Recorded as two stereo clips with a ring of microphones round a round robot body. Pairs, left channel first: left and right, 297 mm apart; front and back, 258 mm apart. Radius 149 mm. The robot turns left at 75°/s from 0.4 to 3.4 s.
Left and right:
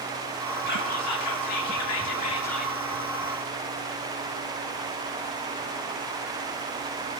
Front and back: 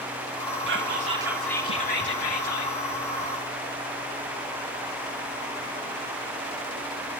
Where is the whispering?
145° left, 1.7 m; by 2.7 s 10° right, 1.7 m.